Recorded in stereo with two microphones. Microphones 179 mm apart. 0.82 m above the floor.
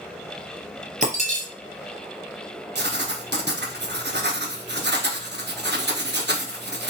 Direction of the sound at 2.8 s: 75° right (ahead or behind).